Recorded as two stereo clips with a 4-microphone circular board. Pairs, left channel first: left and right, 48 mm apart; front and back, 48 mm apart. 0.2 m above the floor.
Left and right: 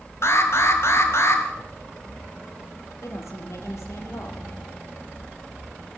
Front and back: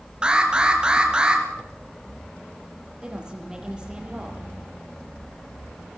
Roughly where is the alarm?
Left.